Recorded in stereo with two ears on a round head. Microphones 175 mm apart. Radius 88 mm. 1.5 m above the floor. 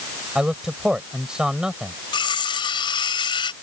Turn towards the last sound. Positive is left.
turn(degrees=25)  # may be behind; listen again after turning